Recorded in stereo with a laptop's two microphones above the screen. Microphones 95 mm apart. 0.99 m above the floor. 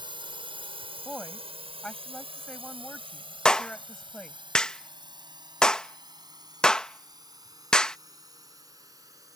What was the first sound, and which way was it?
A drone, 55° right (ahead or behind).